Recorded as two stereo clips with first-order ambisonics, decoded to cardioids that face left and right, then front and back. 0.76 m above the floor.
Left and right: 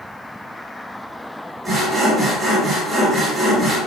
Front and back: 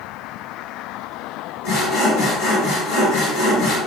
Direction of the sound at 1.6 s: 5° right.